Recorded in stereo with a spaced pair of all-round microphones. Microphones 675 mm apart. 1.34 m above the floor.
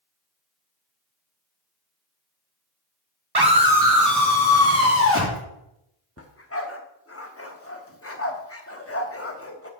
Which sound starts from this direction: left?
A dog barking, at 6.2 s.